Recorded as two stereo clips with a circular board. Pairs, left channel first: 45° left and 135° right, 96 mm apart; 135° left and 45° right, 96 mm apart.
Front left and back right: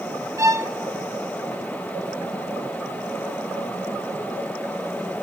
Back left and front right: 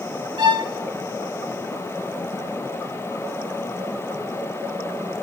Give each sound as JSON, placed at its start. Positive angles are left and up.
{"t": 0.4, "sound": "a violin", "azimuth_deg": -80, "distance_m": 1.0}